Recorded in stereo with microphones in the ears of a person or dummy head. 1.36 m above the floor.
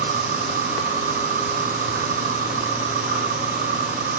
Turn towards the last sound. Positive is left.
turn(degrees=-40)  # may be behind; listen again after turning